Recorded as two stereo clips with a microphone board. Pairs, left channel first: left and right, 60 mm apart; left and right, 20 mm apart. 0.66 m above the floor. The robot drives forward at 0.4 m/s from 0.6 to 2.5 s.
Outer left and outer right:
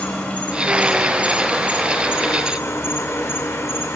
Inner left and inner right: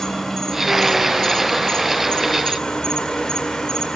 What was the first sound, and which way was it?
An insect, 25° left (ahead or behind).